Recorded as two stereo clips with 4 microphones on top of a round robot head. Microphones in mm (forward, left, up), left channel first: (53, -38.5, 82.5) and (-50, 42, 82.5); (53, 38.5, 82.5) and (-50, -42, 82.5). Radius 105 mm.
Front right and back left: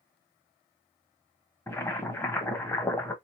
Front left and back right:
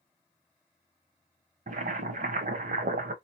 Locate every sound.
1.7 s boiling: 110° right, 0.8 m